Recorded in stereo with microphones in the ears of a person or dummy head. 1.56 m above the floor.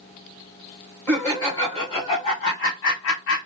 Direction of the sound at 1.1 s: 15° left (ahead or behind).